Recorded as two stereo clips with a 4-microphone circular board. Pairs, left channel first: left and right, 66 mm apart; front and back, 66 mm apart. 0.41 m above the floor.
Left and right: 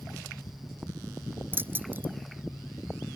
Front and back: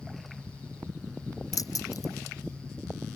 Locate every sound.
1.5 s keys jangling: 30° right